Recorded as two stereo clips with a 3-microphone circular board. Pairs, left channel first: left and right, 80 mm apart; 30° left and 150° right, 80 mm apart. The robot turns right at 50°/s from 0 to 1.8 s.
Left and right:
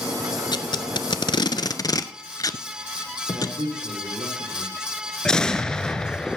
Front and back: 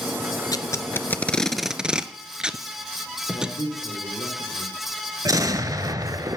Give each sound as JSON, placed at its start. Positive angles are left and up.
{"t": 0.5, "sound": "tape being pulled", "azimuth_deg": 65, "distance_m": 0.6}
{"t": 3.3, "sound": "a man speaking", "azimuth_deg": -120, "distance_m": 5.0}
{"t": 5.2, "sound": "an explosion", "azimuth_deg": 170, "distance_m": 0.8}